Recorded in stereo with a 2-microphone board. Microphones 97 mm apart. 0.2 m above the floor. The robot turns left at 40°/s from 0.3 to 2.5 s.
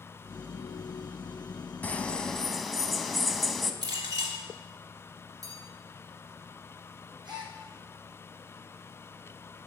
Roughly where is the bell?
Right.